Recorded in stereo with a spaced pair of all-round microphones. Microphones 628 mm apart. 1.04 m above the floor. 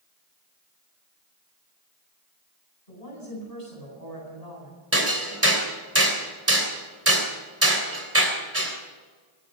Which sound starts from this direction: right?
Hammering, at 4.9 s.